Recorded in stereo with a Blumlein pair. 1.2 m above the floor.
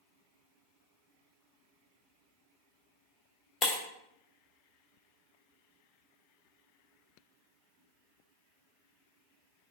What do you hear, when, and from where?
3.6 s breaking glass: 20° left, 0.9 m